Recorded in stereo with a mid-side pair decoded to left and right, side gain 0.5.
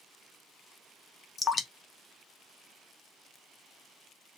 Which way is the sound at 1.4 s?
35° left.